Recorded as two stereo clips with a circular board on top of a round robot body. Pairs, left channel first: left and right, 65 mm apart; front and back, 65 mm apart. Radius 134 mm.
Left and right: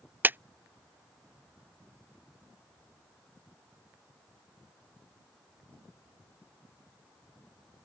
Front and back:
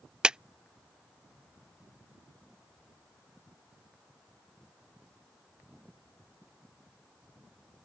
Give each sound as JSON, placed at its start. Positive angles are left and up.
{"t": 0.2, "sound": "a clap", "azimuth_deg": -115}